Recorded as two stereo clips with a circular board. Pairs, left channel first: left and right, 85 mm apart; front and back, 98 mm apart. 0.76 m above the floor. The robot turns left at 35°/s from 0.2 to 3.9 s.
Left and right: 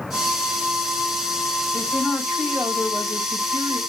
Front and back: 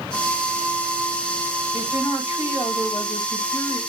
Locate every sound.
1.7 s a woman speaking: 20° left, 4.5 m; by 3.8 s 55° right, 4.5 m